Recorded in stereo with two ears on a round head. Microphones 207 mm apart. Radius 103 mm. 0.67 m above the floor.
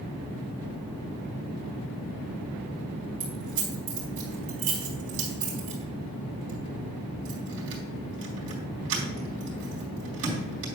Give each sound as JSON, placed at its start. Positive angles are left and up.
{"t": 3.2, "sound": "keys jangling", "side_deg": -65, "distance_m": 3.5}